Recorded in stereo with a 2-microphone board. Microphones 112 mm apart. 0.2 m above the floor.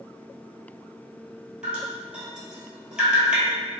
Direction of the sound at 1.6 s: 10° right (ahead or behind).